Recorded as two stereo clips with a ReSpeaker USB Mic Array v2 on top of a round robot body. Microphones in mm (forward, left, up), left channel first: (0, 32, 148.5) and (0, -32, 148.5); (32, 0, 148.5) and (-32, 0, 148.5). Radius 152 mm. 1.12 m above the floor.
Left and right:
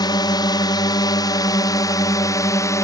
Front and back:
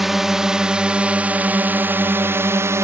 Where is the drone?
95° left; by 2.9 s 130° left.